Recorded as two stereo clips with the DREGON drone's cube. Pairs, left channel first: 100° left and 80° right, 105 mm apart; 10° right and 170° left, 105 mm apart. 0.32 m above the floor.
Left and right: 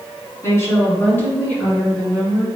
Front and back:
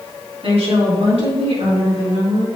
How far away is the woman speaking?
About 2.5 m.